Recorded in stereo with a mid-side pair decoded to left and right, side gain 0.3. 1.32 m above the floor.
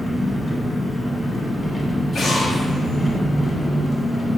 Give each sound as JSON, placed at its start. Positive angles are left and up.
{"t": 0.0, "sound": "an engine running", "azimuth_deg": 35, "distance_m": 1.2}
{"t": 2.1, "sound": "an explosion", "azimuth_deg": 70, "distance_m": 0.8}